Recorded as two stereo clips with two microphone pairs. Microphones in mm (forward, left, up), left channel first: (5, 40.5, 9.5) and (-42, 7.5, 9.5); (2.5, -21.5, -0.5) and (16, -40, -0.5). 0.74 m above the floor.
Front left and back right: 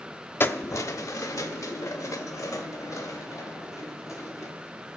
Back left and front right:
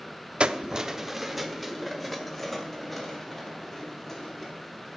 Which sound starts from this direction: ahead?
Keys jangling, at 0.4 s.